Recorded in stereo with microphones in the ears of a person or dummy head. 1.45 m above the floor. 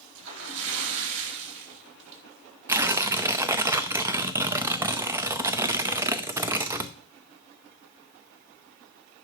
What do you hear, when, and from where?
0.1 s a splash: 65° right (ahead or behind), 3 m
2.7 s tearing paper: 20° right (ahead or behind), 0.5 m